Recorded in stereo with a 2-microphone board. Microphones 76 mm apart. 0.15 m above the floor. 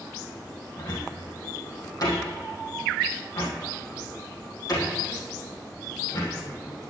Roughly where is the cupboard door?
Left.